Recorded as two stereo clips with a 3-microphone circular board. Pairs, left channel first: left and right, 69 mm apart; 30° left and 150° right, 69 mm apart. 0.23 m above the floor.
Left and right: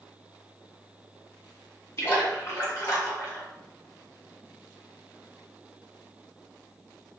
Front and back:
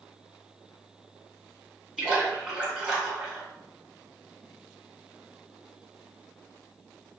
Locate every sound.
2.0 s a splash: 135° left, 1.9 m